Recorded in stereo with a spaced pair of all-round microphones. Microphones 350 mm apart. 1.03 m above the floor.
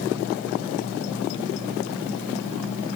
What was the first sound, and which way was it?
Only background noise.